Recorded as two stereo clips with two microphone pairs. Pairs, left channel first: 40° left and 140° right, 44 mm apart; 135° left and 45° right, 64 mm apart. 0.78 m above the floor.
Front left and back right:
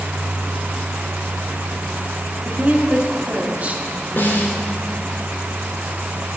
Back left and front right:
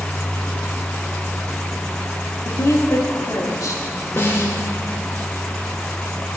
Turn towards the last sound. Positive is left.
turn(degrees=85)